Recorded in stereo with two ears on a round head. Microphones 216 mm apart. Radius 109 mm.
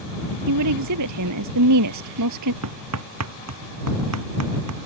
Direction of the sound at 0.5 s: 80° right.